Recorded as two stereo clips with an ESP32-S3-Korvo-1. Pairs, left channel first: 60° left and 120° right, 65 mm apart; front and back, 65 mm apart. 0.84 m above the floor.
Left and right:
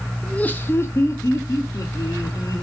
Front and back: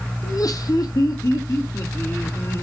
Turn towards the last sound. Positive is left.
turn(degrees=40)